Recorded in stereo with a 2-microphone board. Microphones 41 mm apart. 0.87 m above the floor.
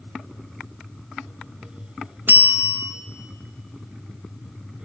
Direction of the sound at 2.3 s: 55° right (ahead or behind).